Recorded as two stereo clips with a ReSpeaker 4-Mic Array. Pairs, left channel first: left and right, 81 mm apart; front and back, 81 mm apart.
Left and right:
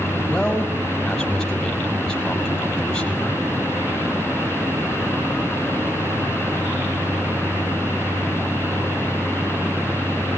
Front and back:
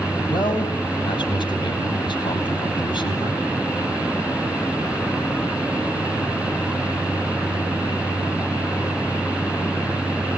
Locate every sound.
0.3 s a man speaking: 5° left, 5.5 m